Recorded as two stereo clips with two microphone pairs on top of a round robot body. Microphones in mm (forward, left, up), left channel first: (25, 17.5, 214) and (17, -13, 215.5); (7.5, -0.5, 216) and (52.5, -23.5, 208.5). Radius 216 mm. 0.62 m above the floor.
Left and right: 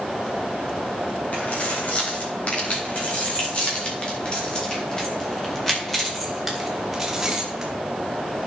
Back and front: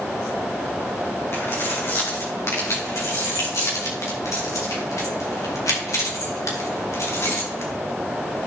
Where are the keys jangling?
115° left, 4 m; by 7.7 s straight behind, 2.5 m.